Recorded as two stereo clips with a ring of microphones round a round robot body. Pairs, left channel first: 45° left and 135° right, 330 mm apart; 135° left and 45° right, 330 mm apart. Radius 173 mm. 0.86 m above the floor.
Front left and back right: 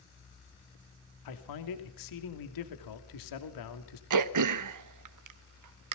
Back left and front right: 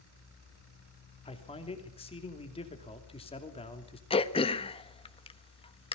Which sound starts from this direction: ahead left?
A man speaking, at 1.2 s.